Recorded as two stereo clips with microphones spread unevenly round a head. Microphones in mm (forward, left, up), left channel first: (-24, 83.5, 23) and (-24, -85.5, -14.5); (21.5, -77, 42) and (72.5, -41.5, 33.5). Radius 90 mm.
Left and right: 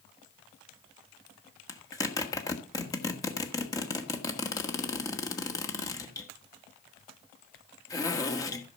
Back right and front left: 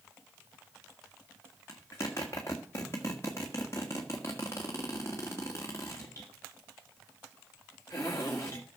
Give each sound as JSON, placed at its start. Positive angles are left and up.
{"t": 1.7, "sound": "a zipper", "azimuth_deg": 150, "distance_m": 1.6}